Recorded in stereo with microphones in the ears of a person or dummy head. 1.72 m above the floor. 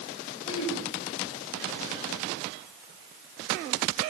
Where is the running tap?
I don't hear a running tap.